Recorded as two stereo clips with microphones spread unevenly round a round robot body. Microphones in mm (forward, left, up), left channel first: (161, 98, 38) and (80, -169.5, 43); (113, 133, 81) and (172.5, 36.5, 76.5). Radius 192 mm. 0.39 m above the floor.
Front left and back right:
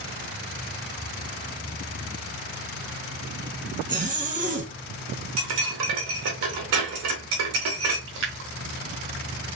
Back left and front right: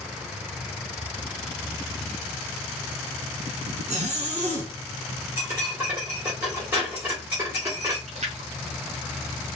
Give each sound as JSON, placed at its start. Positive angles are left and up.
{"t": 3.9, "sound": "a zipper", "azimuth_deg": -45, "distance_m": 1.7}
{"t": 5.4, "sound": "cutlery clinking", "azimuth_deg": -130, "distance_m": 1.1}
{"t": 8.1, "sound": "a splash", "azimuth_deg": -65, "distance_m": 1.2}